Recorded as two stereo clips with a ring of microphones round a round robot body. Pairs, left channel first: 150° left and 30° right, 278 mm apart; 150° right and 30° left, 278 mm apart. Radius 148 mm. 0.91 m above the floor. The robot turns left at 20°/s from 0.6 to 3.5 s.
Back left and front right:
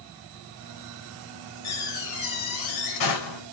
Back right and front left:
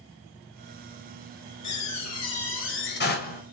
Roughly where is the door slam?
Behind.